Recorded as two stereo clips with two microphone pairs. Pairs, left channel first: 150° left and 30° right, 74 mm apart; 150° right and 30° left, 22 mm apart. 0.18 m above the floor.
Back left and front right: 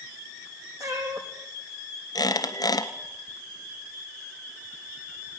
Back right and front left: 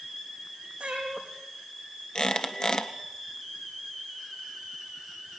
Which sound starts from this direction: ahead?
A cat meowing, at 0.8 s.